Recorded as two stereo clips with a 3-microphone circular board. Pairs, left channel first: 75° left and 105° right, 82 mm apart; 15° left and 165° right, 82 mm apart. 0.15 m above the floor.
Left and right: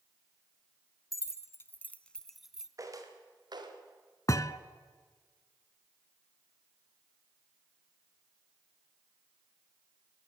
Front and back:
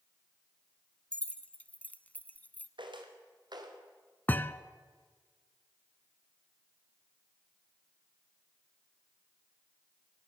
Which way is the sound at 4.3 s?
70° left.